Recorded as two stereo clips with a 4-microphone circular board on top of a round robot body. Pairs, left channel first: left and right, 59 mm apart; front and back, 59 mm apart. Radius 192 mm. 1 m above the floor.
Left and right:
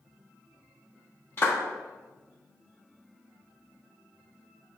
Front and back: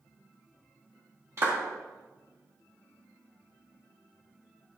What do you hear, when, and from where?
1.4 s a clap: 140° left, 1.9 m